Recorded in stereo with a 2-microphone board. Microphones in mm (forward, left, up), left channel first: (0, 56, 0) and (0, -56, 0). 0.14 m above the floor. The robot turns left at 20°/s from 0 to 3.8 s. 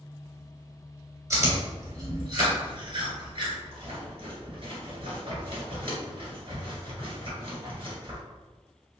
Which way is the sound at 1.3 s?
30° right (ahead or behind).